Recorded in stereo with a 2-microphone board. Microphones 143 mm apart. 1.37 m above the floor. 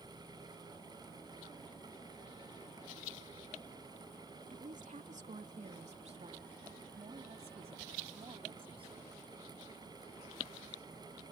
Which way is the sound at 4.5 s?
60° right (ahead or behind).